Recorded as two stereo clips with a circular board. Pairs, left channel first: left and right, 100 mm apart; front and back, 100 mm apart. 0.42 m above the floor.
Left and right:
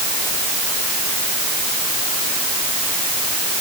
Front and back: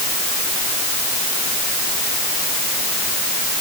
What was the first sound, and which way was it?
Only background noise.